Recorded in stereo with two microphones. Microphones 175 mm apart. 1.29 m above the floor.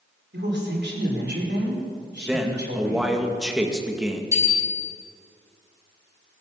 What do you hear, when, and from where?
0.3 s a woman speaking: 85° right, 4.5 m
2.3 s a man speaking: 5° right (ahead or behind), 2.0 m
4.3 s a bicycle bell: 20° right (ahead or behind), 7 m